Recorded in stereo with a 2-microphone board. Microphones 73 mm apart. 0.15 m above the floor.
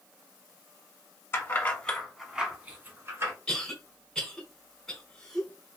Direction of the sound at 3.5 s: 10° left (ahead or behind).